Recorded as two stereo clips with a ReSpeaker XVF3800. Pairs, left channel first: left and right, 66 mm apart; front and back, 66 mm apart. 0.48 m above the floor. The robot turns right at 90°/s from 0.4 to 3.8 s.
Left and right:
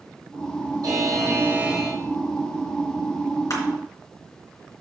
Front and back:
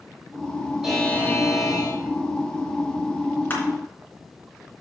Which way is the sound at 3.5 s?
60° left.